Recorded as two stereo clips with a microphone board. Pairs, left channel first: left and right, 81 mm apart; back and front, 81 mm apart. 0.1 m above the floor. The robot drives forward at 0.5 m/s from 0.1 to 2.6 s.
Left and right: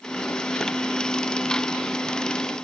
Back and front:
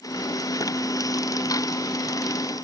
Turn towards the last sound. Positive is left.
No sound to turn to.